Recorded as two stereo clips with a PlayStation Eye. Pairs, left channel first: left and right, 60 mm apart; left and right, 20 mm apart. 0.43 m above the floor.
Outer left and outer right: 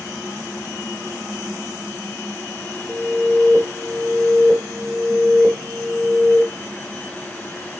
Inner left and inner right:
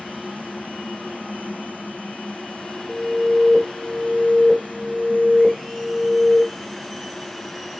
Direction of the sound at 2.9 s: 35° right (ahead or behind).